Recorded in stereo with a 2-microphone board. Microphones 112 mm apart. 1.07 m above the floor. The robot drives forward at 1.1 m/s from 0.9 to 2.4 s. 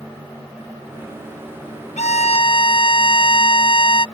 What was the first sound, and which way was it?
A violin, 85° left.